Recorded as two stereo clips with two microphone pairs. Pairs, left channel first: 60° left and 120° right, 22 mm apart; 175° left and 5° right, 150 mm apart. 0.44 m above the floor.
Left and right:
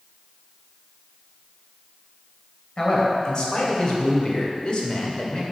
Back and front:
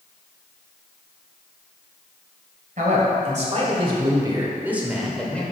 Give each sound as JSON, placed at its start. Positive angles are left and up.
{"t": 2.8, "sound": "a man speaking", "azimuth_deg": 10, "distance_m": 2.0}